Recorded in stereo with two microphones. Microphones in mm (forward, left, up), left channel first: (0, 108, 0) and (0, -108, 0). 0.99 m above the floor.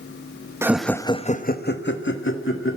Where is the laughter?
10° right (ahead or behind), 0.9 m; by 2.8 s 75° left (ahead or behind), 2 m.